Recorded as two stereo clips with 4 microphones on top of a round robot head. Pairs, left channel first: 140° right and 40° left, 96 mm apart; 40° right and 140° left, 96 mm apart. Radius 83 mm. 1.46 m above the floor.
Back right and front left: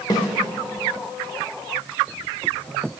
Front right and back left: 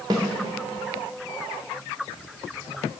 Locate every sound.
0.1 s a snare drum: straight behind, 0.7 m